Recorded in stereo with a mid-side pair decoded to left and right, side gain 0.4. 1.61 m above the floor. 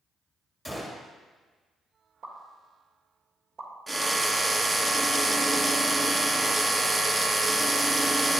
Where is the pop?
65° right, 3 m.